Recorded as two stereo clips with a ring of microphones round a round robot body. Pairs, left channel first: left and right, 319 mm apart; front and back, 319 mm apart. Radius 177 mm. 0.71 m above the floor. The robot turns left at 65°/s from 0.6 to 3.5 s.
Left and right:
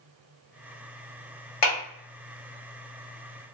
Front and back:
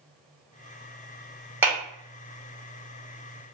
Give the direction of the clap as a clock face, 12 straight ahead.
9 o'clock.